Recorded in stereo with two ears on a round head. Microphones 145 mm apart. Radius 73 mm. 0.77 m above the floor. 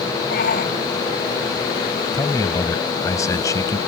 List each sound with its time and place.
0.3 s a shout: 60° left (ahead or behind)
2.1 s a man speaking: 20° left (ahead or behind)